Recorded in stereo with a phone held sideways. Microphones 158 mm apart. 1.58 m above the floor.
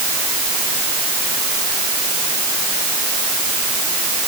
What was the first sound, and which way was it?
Only background noise.